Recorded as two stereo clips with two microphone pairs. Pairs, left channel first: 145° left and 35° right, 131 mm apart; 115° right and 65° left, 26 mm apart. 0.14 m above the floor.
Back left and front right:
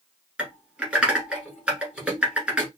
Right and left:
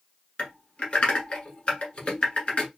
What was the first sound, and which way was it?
Typing on a keyboard, 115° right.